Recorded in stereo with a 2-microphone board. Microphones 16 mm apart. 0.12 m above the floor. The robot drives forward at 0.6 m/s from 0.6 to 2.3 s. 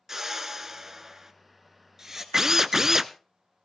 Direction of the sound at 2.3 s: 35° right (ahead or behind).